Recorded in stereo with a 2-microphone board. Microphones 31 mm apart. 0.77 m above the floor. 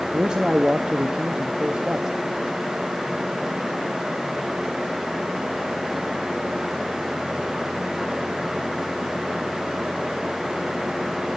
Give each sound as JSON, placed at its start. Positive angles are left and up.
{"t": 0.1, "sound": "a man speaking", "side_deg": -30, "distance_m": 0.9}